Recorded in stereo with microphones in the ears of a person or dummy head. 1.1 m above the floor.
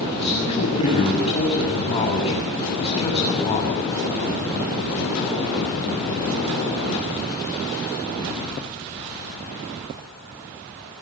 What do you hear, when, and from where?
0.1 s a man speaking: 35° left (ahead or behind), 8 m